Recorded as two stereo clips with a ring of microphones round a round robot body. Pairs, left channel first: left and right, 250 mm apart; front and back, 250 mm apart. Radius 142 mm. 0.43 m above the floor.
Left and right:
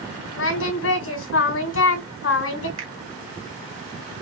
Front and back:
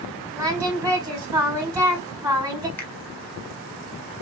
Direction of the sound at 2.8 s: 80° right.